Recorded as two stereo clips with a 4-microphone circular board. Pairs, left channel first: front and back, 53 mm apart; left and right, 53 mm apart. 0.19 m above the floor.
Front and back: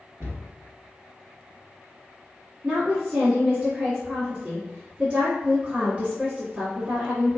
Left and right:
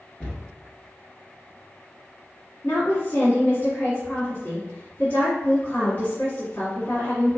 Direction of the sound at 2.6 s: 125° left.